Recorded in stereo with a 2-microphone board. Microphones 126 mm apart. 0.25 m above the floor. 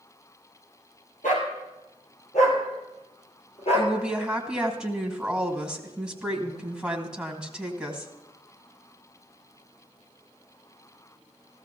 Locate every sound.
1.2 s a dog barking: 85° left, 2.5 m; by 3.9 s 50° left (ahead or behind), 2.5 m
3.7 s a woman speaking: 5° right (ahead or behind), 2 m